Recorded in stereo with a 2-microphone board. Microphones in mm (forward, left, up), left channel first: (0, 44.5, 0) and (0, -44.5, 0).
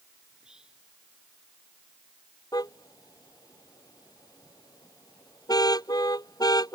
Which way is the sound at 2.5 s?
45° left (ahead or behind).